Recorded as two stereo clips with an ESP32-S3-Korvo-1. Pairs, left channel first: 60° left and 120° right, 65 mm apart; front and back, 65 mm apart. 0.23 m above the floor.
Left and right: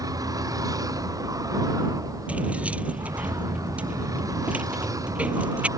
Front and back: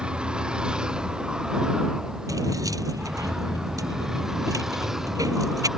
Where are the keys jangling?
175° left.